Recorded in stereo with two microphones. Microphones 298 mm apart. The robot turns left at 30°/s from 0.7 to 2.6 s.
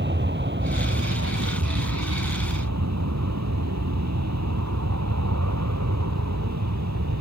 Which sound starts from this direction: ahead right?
An aircraft, at 0.0 s.